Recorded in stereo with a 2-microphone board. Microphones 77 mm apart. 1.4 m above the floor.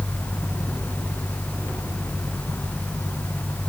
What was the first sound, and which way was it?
Only background noise.